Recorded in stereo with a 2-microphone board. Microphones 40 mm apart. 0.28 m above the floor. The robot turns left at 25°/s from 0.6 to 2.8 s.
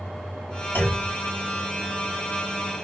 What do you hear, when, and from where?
0.8 s a clunk: 55° left (ahead or behind), 1.7 m